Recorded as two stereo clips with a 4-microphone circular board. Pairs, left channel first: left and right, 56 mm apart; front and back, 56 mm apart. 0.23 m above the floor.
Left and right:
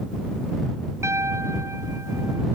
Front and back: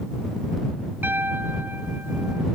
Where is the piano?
125° right.